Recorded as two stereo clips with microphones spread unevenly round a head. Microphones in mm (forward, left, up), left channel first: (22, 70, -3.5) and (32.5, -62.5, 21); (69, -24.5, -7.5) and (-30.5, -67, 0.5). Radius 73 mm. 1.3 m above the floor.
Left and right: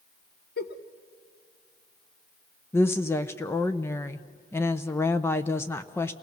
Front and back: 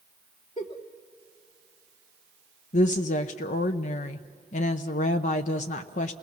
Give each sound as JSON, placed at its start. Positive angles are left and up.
{"t": 0.6, "sound": "a giggle", "azimuth_deg": 85, "distance_m": 1.2}
{"t": 2.7, "sound": "a woman speaking", "azimuth_deg": 25, "distance_m": 0.7}